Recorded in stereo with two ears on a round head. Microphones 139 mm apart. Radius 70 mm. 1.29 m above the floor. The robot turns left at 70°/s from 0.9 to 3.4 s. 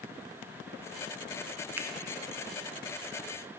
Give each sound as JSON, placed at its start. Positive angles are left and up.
{"t": 1.8, "sound": "a finger snap", "side_deg": -10, "distance_m": 0.6}